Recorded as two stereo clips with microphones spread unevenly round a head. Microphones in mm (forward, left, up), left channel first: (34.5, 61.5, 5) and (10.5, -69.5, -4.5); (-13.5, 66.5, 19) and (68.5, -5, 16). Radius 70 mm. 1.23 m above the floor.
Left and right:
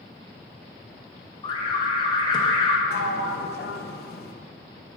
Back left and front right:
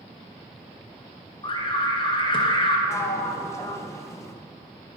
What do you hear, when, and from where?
1.4 s an alarm: 130° left, 1.2 m
2.9 s a sliding door: 75° left, 0.9 m